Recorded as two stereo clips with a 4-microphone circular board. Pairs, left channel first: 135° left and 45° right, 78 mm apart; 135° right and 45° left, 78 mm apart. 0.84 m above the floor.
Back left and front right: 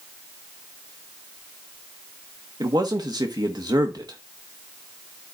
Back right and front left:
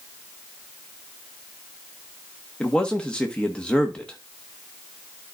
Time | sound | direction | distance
2.6 | a man speaking | 60° right | 1.1 m